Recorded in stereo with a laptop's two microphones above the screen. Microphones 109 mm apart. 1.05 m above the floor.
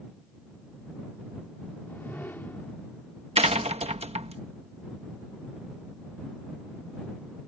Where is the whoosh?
15° left (ahead or behind).